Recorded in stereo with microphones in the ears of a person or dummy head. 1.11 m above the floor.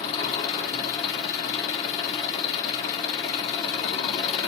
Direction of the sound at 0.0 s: 40° left (ahead or behind).